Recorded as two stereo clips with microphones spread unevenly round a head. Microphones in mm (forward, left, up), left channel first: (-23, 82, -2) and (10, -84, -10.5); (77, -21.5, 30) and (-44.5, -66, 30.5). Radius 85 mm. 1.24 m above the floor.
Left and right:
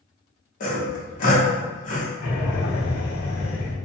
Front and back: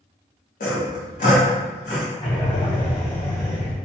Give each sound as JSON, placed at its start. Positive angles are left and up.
{"t": 0.6, "sound": "sawing", "azimuth_deg": 55, "distance_m": 1.2}
{"t": 2.2, "sound": "breathing", "azimuth_deg": 70, "distance_m": 1.1}